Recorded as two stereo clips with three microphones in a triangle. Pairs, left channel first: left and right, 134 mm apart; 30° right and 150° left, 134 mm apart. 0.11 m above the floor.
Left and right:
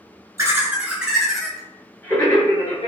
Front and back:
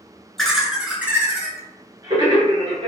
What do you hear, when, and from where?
0.4 s laughter: 115° right, 1.3 m; by 2.9 s 130° left, 1.7 m